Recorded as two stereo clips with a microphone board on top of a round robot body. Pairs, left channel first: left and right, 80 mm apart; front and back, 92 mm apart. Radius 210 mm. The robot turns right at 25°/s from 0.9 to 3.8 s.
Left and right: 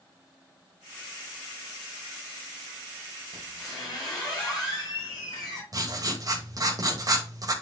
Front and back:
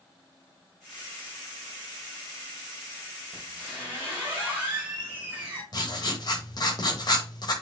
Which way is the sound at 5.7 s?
45° right.